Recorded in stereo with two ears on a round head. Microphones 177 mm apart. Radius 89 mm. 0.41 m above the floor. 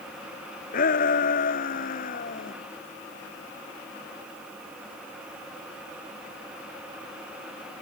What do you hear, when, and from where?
0.7 s a shout: 45° left (ahead or behind)